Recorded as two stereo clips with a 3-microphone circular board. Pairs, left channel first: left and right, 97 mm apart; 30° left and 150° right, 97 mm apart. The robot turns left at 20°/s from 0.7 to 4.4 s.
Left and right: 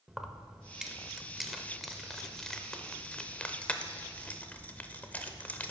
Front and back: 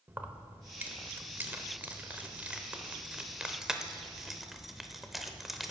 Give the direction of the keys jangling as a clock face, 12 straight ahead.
5 o'clock.